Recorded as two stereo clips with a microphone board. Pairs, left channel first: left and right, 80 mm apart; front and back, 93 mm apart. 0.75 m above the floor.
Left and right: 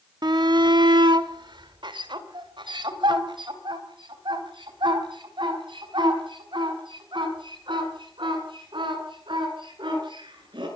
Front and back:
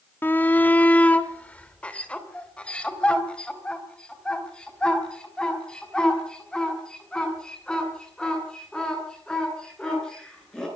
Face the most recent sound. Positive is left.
turn(degrees=-80)